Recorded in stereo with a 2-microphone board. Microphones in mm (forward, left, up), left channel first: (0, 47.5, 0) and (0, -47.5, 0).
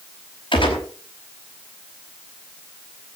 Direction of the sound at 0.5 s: 60° left (ahead or behind).